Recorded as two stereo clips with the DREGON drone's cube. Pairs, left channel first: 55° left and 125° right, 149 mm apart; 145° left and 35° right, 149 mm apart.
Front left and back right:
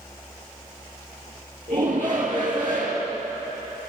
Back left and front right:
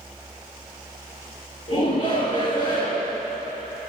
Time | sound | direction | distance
1.7 | a shout | straight behind | 3 m